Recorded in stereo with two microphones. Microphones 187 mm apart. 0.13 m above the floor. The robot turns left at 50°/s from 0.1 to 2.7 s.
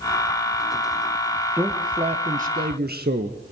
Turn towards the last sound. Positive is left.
turn(degrees=-70)